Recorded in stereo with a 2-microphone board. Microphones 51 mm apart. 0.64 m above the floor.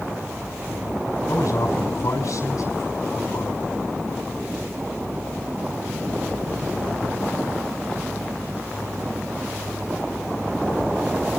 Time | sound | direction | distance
1.3 | a man speaking | 80° left | 4.5 m